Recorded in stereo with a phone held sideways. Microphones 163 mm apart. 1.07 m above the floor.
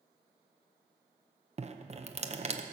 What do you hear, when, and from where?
1.6 s dripping: 40° right (ahead or behind), 0.7 m